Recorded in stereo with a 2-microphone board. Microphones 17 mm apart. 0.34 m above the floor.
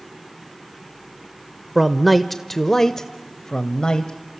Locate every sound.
1.8 s a man speaking: 10° right (ahead or behind), 0.9 m; by 4.1 s 55° left (ahead or behind), 1.4 m